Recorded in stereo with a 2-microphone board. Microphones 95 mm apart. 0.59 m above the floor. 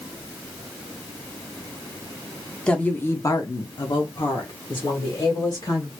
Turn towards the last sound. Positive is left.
turn(degrees=55)  # may be behind; listen again after turning